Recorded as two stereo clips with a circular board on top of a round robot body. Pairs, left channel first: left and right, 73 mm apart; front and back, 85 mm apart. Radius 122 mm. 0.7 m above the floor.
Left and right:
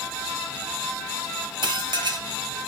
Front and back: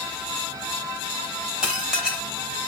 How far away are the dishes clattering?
About 1.4 m.